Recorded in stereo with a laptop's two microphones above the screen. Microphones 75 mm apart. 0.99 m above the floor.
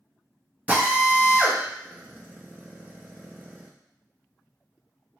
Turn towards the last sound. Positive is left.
turn(degrees=-20)  # may be behind; listen again after turning